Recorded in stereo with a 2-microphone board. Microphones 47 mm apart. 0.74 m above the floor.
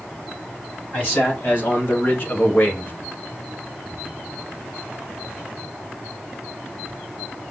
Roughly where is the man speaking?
Left.